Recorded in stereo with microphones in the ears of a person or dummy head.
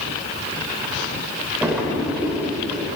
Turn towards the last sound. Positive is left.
turn(degrees=-5)  # may be behind; listen again after turning